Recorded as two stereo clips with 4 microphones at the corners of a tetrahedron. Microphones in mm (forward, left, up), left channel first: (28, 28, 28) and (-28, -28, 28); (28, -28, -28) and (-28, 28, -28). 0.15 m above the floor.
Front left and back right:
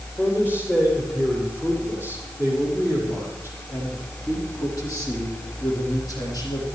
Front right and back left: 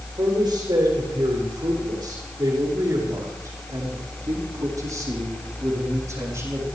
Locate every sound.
0.2 s a man speaking: 105° left, 7.5 m; by 6.7 s 80° left, 7.5 m